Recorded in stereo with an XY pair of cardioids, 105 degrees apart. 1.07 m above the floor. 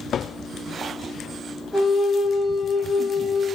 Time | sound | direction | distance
1.7 | a flute | 10° left | 0.9 m